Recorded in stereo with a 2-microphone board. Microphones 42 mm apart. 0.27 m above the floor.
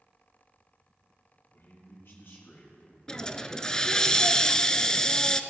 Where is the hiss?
15° left (ahead or behind), 0.6 m.